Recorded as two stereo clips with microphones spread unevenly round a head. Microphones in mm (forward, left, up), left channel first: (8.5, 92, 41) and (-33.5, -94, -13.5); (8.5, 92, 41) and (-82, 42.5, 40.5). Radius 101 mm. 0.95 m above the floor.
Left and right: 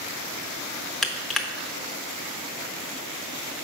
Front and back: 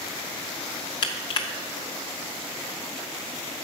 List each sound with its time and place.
1.0 s crushing: 10° left, 0.6 m